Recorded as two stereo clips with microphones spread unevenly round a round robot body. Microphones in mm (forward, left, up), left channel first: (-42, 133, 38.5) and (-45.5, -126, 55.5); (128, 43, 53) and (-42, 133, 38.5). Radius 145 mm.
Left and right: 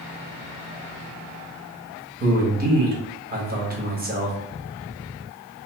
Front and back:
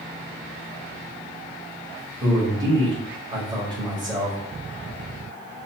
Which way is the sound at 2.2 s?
145° right.